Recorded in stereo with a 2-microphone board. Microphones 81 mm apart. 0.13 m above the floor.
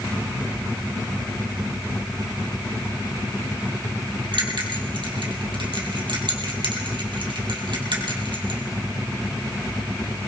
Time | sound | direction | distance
4.3 | a bell | 70° right (ahead or behind) | 2.5 m